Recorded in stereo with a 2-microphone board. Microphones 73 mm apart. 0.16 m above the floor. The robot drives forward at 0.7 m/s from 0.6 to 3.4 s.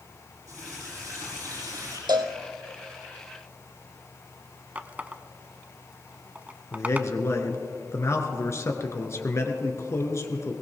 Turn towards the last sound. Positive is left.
turn(degrees=40)  # may be behind; listen again after turning